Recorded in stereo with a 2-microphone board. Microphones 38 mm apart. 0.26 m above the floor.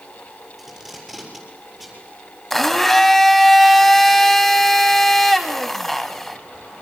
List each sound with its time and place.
0.6 s tape being pulled: centre (ahead or behind), 7.5 m
2.5 s a blender: 10° left (ahead or behind), 1.3 m